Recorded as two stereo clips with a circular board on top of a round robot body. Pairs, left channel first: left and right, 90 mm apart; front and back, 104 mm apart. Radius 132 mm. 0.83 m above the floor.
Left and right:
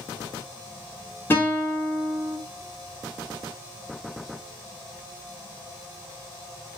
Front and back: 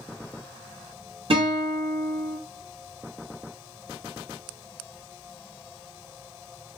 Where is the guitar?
155° left, 1.3 m.